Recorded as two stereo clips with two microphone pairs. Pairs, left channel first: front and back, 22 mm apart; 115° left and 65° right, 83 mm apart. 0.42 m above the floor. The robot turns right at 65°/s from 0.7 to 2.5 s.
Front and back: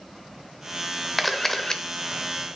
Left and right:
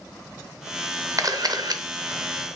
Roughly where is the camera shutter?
Right.